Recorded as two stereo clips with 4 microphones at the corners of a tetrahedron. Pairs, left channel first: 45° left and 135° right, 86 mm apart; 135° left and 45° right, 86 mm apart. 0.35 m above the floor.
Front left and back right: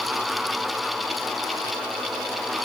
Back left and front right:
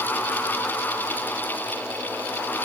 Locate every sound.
Only background noise.